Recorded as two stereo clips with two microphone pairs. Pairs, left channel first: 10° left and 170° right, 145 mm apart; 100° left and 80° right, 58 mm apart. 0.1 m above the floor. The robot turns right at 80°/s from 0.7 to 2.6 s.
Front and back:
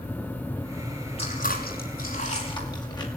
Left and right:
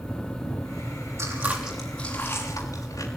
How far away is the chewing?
About 6 m.